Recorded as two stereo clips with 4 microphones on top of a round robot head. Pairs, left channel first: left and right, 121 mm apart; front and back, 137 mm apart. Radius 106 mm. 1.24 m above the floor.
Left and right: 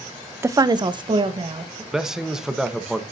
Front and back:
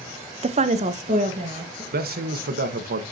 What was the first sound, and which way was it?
A woman speaking, 155° right.